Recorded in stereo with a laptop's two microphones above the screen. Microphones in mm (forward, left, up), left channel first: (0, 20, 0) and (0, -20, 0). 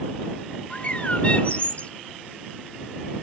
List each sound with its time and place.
0.7 s a bird: 35° left (ahead or behind)